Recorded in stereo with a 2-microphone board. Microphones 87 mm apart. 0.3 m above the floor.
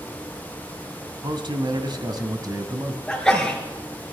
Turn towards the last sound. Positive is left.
turn(degrees=5)  # may be behind; listen again after turning